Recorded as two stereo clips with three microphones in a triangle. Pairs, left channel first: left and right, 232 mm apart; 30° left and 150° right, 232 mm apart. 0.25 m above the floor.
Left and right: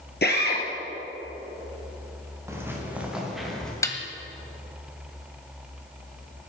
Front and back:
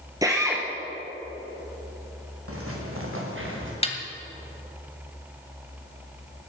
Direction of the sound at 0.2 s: 135° left.